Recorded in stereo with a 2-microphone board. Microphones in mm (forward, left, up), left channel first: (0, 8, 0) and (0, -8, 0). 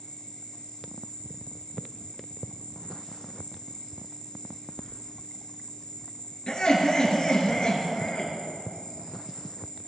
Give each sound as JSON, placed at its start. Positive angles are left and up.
{"t": 0.0, "sound": "an insect", "side_deg": 70, "distance_m": 1.4}
{"t": 4.8, "sound": "keys jangling", "side_deg": 40, "distance_m": 1.0}
{"t": 6.5, "sound": "laughter", "side_deg": 50, "distance_m": 2.5}